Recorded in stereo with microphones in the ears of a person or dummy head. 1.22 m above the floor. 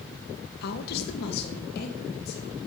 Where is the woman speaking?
55° left (ahead or behind), 0.9 m; by 2.6 s 60° left (ahead or behind), 3 m.